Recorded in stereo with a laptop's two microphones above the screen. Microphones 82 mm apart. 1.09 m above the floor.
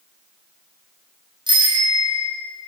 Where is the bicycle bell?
70° right (ahead or behind), 5.5 m.